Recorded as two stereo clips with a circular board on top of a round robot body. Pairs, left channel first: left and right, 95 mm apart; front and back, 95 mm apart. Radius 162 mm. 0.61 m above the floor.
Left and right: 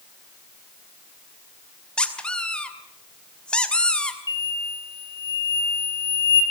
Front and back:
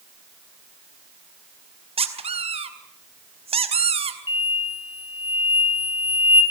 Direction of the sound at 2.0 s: 170° left.